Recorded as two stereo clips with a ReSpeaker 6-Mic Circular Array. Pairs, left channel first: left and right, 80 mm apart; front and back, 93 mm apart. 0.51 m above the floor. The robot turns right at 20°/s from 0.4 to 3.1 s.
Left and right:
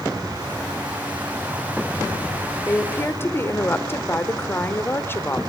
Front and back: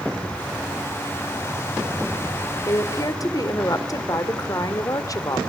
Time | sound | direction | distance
2.6 | a woman speaking | 25° left | 1.9 m